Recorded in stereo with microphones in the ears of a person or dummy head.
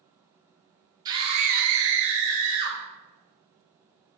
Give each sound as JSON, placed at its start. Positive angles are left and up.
{"t": 1.1, "sound": "a scream", "side_deg": -15, "distance_m": 1.3}